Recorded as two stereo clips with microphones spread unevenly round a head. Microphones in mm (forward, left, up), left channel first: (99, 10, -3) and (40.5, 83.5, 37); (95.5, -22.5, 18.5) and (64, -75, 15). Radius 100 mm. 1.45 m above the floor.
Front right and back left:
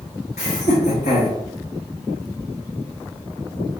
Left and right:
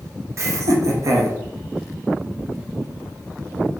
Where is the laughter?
100° right, 0.5 m.